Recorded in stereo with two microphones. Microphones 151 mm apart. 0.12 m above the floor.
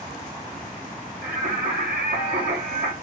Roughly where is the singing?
Right.